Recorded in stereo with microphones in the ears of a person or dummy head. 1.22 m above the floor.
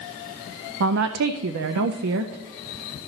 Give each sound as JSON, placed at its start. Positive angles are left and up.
{"t": 0.8, "sound": "a woman speaking", "side_deg": -75, "distance_m": 0.5}